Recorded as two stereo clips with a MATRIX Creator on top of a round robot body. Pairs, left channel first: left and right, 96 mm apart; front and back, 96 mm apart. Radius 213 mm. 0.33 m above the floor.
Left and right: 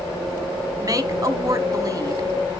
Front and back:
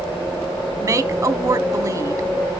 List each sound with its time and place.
0.8 s a woman speaking: 135° right, 1.4 m